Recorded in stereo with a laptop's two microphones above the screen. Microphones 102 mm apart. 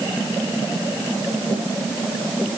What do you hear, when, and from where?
Only background noise.